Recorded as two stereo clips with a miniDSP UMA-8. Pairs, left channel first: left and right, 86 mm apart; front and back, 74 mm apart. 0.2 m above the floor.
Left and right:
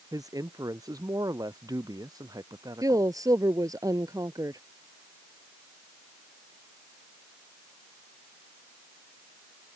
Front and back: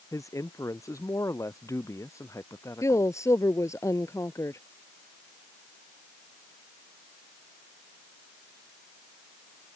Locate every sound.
0.1 s a man speaking: 45° right; by 3.1 s 50° right
2.8 s a woman speaking: 45° right